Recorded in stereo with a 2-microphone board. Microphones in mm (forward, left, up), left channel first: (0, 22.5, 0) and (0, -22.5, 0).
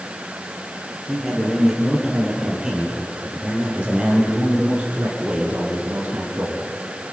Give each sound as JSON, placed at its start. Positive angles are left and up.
{"t": 1.1, "sound": "a man speaking", "side_deg": -5, "distance_m": 7.0}